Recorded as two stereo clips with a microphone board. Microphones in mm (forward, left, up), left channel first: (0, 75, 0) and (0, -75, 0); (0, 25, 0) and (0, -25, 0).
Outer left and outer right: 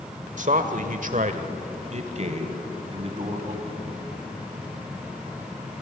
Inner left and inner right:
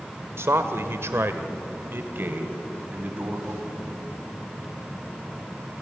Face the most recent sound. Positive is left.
turn(degrees=-35)  # may be behind; listen again after turning